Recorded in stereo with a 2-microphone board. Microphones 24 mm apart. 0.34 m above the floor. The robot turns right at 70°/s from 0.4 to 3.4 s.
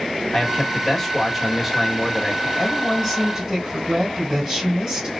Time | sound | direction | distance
0.3 | a man speaking | 20° left (ahead or behind) | 1.2 m
2.6 | a woman speaking | 140° left | 2.5 m